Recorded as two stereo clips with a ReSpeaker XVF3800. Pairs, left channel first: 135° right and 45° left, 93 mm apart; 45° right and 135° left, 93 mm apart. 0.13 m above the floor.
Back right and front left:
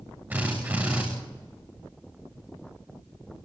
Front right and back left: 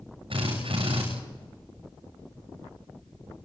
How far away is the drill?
About 9.5 m.